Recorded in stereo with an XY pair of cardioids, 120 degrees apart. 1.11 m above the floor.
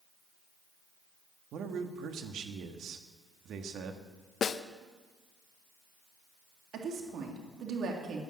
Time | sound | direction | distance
1.5 | a man speaking | 60° right | 1.6 m
4.4 | a snare drum | 40° left | 0.6 m
6.7 | a woman speaking | 60° right | 2.5 m